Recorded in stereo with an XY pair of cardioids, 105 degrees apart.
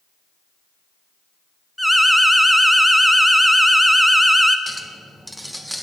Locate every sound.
1.8 s an alarm: 5° right, 0.6 m
4.7 s a clink: 5° right, 0.8 m